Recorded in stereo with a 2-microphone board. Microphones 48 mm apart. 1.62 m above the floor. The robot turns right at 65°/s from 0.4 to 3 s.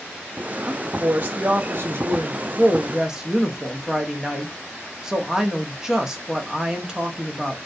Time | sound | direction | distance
0.7 | a woman speaking | 170° right | 0.6 m